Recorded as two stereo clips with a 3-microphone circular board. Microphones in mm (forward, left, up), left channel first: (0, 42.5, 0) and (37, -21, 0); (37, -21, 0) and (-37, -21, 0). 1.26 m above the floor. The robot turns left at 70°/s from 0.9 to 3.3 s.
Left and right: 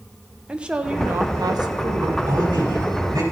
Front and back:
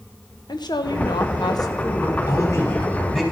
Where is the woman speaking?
20° left, 1.1 m; by 2.2 s 70° right, 1.1 m.